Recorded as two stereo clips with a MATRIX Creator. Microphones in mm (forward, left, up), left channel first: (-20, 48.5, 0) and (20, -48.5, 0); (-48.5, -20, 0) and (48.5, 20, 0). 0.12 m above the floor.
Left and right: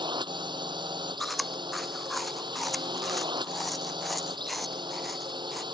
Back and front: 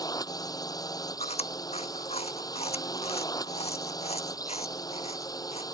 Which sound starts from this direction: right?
A drone, at 0.0 s.